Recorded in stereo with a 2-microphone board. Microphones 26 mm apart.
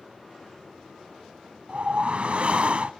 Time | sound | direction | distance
1.7 | a whoosh | 50° right (ahead or behind) | 0.6 m